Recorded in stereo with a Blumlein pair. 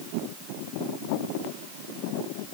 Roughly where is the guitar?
I don't hear a guitar.